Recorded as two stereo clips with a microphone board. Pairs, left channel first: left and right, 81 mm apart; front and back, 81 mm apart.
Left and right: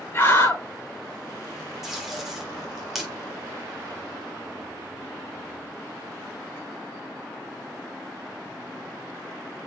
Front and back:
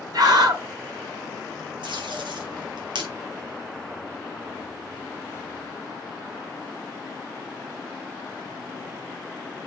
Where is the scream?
145° left, 6.5 m.